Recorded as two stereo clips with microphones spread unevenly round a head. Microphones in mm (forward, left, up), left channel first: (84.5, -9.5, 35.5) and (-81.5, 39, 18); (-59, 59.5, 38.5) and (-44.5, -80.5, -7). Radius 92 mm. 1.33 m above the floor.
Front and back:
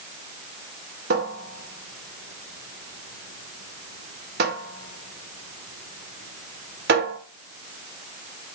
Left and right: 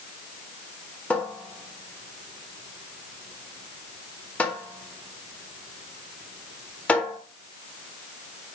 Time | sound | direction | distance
1.1 | a cupboard door | 155° left | 1.3 m